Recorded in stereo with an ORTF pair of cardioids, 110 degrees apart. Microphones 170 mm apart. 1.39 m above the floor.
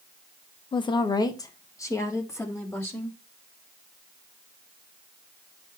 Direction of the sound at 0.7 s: 30° left.